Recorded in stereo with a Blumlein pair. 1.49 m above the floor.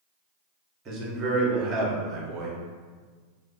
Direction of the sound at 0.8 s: 25° right.